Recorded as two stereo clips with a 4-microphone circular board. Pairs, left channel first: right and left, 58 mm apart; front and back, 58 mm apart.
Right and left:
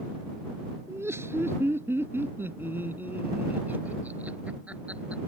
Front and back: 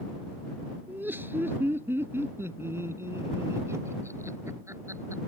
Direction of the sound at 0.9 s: 130° left.